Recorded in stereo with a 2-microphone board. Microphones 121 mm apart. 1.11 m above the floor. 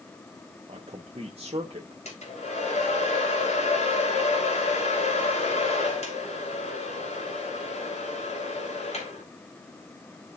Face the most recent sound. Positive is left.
turn(degrees=65)  # may be behind; listen again after turning